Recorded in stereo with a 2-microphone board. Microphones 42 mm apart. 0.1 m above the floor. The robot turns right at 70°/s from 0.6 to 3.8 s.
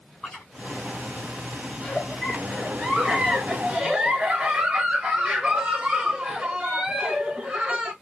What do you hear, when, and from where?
0.2 s chewing: 5° left (ahead or behind), 3.5 m
1.8 s a giggle: 20° left (ahead or behind), 1.8 m; by 7.9 s 25° right (ahead or behind), 1.8 m